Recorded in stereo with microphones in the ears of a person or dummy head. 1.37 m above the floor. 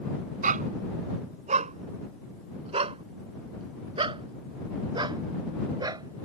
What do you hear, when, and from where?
0.4 s a dog barking: 50° right (ahead or behind); by 6.3 s 25° right (ahead or behind)